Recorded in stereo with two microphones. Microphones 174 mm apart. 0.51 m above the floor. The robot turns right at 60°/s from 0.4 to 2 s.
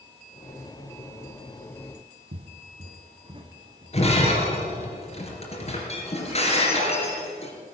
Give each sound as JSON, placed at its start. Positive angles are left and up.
{"t": 2.3, "sound": "footsteps", "side_deg": -70, "distance_m": 1.2}
{"t": 3.9, "sound": "breaking glass", "side_deg": 40, "distance_m": 3.0}